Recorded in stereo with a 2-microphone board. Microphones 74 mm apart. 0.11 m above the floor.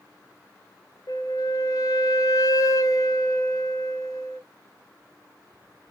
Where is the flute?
50° left (ahead or behind), 0.6 m.